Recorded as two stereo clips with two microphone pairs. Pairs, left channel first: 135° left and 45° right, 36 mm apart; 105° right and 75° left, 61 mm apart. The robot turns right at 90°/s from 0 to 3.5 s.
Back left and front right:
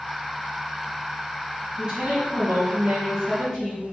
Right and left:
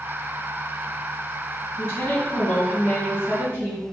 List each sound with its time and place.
1.8 s a woman speaking: 105° right, 1.8 m; by 3.8 s 50° left, 1.8 m